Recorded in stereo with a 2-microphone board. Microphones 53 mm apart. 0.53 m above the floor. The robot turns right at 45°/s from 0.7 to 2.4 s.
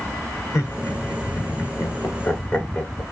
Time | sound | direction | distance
0.5 | laughter | 60° left (ahead or behind) | 1.4 m